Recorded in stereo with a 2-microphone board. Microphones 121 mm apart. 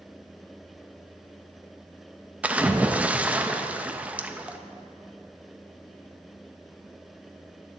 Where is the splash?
10° right (ahead or behind), 0.6 m.